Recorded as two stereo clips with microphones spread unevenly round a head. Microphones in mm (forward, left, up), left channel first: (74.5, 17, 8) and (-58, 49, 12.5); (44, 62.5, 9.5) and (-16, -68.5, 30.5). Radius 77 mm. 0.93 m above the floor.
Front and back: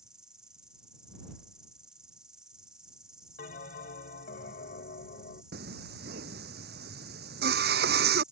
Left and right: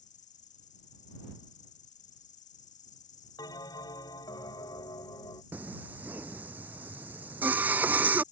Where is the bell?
Straight ahead.